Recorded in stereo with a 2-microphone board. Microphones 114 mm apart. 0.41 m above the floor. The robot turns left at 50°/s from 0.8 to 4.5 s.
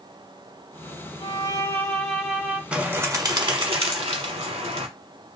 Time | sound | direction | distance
1.2 | a violin | 45° left | 1.0 m
2.7 | a bird | 10° right | 0.7 m